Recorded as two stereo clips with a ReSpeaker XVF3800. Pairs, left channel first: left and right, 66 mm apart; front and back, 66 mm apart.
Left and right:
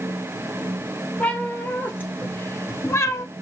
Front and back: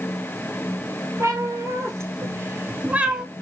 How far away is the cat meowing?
About 1.5 m.